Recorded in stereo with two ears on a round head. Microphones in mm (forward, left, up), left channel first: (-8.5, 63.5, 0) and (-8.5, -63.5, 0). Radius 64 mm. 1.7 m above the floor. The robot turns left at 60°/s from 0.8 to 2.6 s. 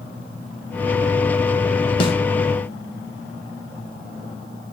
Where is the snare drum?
35° left (ahead or behind), 2 m; by 2.1 s 45° left (ahead or behind), 2 m.